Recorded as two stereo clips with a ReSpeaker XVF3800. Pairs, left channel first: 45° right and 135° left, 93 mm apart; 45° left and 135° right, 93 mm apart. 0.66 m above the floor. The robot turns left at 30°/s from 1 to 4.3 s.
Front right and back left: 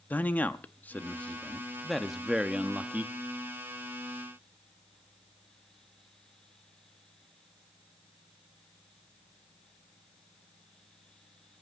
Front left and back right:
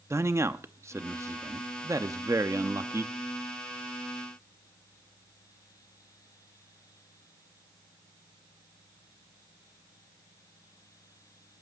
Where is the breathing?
No breathing in this recording.